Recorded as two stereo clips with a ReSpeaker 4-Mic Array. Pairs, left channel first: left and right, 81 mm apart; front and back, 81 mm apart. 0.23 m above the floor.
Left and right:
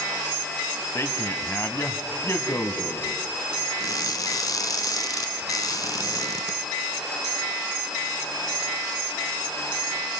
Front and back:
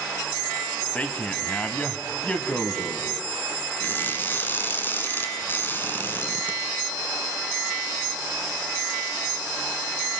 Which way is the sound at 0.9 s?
60° left.